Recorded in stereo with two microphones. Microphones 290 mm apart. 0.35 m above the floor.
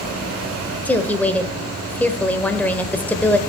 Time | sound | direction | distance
0.8 | a woman speaking | 5° left (ahead or behind) | 1.1 m